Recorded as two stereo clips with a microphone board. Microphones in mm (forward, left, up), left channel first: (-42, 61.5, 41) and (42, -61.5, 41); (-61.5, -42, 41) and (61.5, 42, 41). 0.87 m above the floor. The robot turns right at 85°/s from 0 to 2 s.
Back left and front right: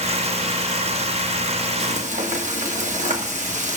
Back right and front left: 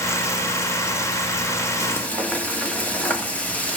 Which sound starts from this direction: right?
Frying, at 1.8 s.